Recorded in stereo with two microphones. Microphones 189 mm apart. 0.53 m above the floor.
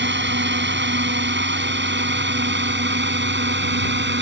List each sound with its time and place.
0.0 s a drone: 70° right (ahead or behind)